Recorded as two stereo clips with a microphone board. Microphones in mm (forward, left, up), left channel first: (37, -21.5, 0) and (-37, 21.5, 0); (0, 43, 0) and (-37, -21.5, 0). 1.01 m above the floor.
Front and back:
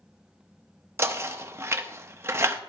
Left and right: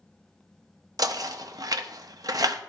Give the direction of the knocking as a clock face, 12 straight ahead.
5 o'clock.